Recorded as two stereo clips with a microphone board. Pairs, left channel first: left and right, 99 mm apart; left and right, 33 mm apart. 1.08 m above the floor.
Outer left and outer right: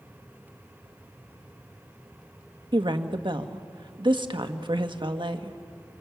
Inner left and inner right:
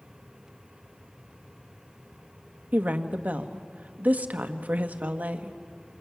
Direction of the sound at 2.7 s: 55° right (ahead or behind).